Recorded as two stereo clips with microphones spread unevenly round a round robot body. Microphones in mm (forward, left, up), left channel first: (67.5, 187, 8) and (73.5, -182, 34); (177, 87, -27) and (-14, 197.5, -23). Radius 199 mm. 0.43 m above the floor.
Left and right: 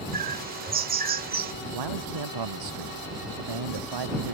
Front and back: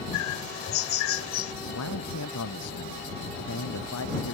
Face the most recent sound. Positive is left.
turn(degrees=-65)